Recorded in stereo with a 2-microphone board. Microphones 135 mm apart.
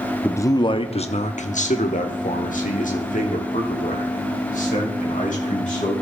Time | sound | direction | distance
0.2 | a man speaking | 15° left (ahead or behind) | 0.7 m